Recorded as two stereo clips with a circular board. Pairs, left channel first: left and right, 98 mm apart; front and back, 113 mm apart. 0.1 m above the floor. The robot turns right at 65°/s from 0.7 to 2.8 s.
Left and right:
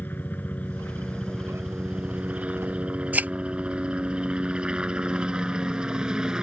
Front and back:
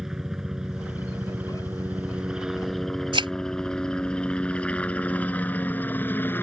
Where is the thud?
160° right.